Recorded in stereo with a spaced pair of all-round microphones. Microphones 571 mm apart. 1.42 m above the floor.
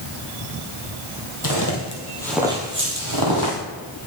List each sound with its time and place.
1.4 s footsteps: 35° left (ahead or behind), 1.9 m; by 3.6 s 45° right (ahead or behind), 2 m